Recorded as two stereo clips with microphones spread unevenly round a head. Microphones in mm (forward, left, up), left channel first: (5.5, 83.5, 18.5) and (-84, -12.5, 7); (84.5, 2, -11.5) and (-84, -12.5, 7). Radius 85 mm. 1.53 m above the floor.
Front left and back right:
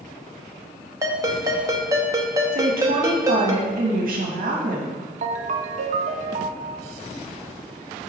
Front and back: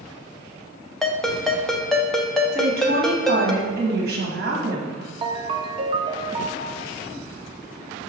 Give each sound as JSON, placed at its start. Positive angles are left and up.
{"t": 1.0, "sound": "a ringtone", "azimuth_deg": -95, "distance_m": 0.6}
{"t": 2.5, "sound": "a woman speaking", "azimuth_deg": -150, "distance_m": 1.4}
{"t": 5.2, "sound": "a ringtone", "azimuth_deg": -135, "distance_m": 0.5}